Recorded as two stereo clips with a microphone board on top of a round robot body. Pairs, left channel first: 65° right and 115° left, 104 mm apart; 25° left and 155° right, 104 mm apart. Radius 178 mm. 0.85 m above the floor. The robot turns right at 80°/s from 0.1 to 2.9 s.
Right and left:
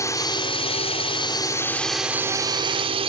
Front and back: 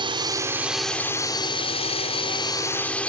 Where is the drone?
125° right; by 3.1 s 100° left.